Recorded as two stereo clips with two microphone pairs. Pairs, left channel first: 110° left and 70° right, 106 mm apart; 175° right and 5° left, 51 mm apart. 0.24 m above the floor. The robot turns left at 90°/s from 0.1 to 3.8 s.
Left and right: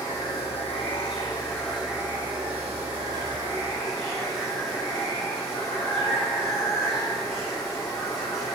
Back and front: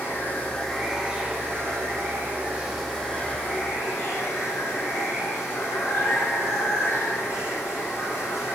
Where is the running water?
170° left, 3 m; by 8.6 s 165° right, 3 m.